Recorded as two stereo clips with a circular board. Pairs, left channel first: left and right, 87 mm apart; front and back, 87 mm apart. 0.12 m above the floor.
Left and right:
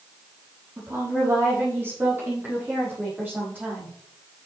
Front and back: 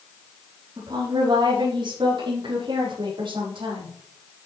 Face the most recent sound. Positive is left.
turn(degrees=-160)